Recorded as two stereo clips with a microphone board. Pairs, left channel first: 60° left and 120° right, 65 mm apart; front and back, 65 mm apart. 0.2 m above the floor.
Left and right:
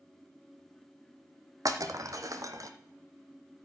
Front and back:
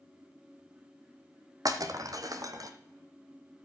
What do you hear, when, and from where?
1.6 s breaking glass: 150° right, 1.0 m